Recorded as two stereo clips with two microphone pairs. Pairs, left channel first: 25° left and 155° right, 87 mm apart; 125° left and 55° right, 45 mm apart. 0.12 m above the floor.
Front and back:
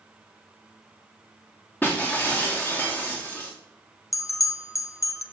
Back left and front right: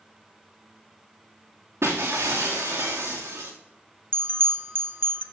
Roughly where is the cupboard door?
No cupboard door in this recording.